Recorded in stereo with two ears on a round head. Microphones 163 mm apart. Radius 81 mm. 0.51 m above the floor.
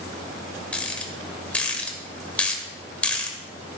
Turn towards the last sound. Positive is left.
turn(degrees=5)  # may be behind; listen again after turning